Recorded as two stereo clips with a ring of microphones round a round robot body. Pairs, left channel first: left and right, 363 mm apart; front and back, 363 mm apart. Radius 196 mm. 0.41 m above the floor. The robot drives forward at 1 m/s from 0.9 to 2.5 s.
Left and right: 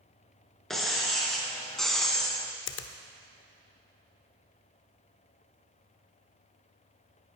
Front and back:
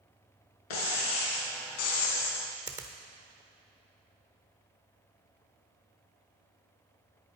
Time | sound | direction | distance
0.7 | breaking glass | straight ahead | 3 m
2.7 | a finger snap | 105° left | 0.7 m